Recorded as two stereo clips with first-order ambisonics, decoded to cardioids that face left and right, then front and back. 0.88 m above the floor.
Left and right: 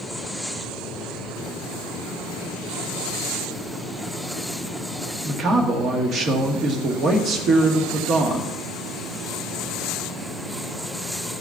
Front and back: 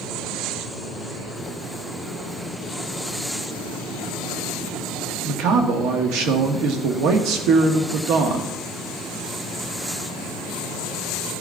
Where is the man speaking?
150° right, 1.2 m.